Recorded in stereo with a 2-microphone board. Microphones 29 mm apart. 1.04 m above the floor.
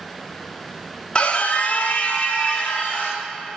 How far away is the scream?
About 0.9 m.